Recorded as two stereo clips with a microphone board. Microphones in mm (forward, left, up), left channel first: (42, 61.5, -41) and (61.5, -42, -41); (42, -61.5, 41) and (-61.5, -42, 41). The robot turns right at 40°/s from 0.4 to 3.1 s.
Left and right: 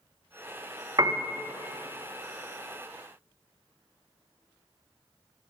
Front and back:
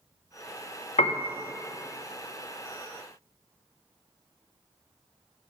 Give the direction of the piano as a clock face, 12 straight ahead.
1 o'clock.